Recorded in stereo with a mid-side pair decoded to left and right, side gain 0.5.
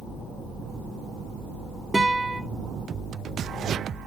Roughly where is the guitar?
Ahead.